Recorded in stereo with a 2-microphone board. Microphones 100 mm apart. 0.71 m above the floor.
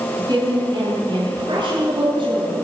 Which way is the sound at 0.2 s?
45° right (ahead or behind).